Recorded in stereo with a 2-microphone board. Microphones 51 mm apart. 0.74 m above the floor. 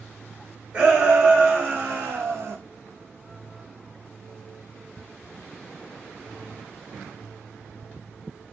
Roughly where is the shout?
Right.